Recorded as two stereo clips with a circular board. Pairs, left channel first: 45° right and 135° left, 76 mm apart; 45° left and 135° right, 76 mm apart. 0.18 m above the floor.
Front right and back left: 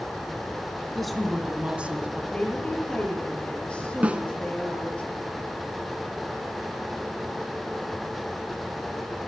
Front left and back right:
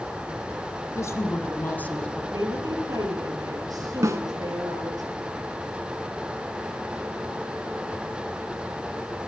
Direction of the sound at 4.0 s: 160° right.